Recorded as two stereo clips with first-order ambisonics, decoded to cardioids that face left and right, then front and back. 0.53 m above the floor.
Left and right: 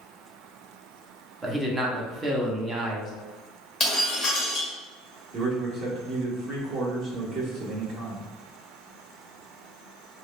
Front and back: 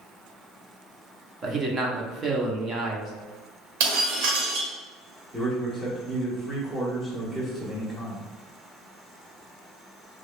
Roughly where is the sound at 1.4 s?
Behind right.